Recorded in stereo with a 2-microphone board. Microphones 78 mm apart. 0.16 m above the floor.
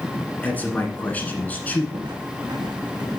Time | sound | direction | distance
0.4 | a man speaking | 20° left (ahead or behind) | 1.5 m
1.9 | footsteps | 85° right | 1.6 m